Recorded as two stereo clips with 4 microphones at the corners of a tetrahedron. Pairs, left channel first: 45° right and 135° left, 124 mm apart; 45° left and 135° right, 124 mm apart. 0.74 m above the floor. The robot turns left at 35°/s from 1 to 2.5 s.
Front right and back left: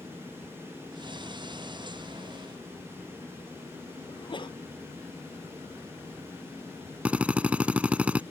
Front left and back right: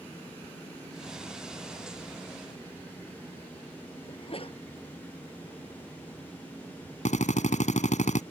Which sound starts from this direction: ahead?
A sneeze, at 4.1 s.